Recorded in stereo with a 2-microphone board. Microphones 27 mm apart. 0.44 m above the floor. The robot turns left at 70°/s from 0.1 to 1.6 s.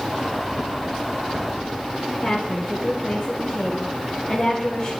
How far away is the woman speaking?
About 2 m.